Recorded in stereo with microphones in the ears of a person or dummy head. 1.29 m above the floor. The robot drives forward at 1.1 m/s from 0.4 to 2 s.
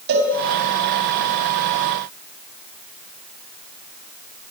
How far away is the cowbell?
About 4 m.